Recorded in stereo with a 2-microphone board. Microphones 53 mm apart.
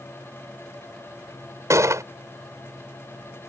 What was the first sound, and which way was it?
A gunshot, 70° right (ahead or behind).